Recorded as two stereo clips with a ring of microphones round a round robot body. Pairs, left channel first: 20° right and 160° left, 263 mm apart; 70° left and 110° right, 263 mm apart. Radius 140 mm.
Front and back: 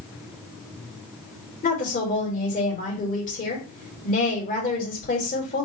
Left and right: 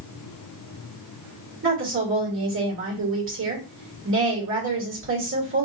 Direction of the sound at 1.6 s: 80° right.